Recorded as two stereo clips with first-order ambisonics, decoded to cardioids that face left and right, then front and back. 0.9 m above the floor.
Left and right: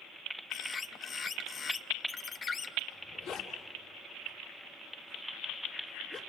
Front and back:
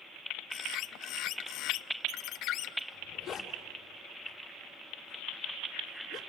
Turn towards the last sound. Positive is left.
turn(degrees=70)